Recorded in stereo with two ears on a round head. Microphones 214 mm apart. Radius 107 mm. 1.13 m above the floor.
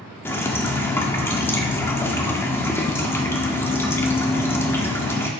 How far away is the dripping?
About 1.4 m.